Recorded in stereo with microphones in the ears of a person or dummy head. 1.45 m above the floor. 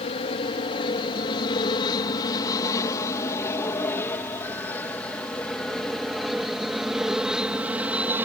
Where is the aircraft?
35° left (ahead or behind); by 8.3 s 5° right (ahead or behind).